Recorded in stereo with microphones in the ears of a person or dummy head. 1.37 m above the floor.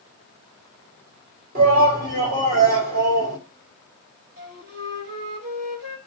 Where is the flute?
55° right (ahead or behind), 2.5 m.